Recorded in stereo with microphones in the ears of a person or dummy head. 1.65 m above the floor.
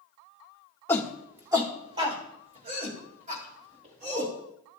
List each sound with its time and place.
0.9 s a shout: 15° left (ahead or behind), 0.7 m; by 4.3 s 45° right (ahead or behind), 3.5 m